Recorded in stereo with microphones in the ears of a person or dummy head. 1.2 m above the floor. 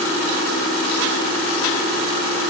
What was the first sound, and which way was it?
Only background noise.